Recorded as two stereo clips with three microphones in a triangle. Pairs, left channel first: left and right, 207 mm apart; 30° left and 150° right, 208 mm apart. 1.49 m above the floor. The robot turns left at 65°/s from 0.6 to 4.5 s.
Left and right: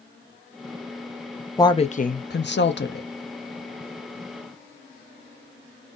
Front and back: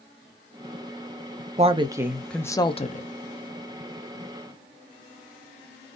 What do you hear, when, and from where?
1.6 s a woman speaking: 165° left, 0.7 m; by 3.1 s 65° left, 0.7 m